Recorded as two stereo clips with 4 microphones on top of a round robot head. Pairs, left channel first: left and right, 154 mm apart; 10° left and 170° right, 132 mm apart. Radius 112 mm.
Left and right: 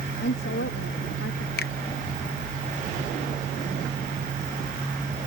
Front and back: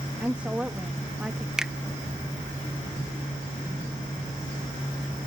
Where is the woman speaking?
105° left.